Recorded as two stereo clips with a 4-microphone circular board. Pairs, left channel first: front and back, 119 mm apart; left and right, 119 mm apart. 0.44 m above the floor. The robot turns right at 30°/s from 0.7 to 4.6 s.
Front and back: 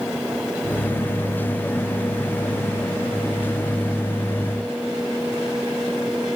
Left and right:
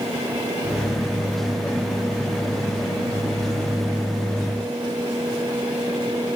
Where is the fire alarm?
No fire alarm in this recording.